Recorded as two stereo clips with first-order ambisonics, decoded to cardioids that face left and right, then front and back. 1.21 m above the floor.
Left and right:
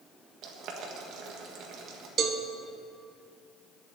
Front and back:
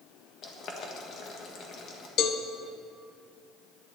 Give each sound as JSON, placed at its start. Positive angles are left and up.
{"t": 0.4, "sound": "boiling", "azimuth_deg": -50, "distance_m": 1.6}
{"t": 2.2, "sound": "a cowbell", "azimuth_deg": -35, "distance_m": 0.9}